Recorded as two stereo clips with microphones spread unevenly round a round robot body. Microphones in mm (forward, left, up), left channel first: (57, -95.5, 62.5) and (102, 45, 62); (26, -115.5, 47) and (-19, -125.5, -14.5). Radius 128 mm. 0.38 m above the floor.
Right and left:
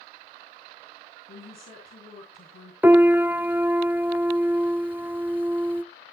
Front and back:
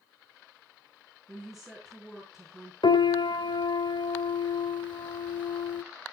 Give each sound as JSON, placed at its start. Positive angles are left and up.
{"t": 1.3, "sound": "a woman speaking", "azimuth_deg": -90, "distance_m": 5.5}
{"t": 2.8, "sound": "a piano", "azimuth_deg": -5, "distance_m": 0.7}